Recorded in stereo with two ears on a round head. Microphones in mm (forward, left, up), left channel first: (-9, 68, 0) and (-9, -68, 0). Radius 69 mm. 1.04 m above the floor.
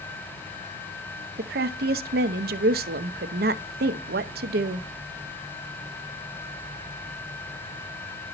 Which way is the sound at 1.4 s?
70° right (ahead or behind).